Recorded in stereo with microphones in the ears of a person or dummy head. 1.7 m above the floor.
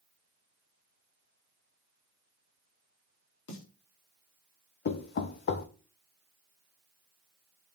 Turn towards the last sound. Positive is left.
turn(degrees=40)  # may be behind; listen again after turning